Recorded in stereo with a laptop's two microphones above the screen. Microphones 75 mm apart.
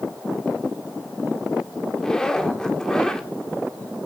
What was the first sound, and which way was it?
A zipper, 10° left (ahead or behind).